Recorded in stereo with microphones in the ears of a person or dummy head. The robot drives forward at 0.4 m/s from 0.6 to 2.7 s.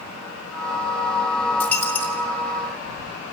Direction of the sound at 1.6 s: 10° left (ahead or behind).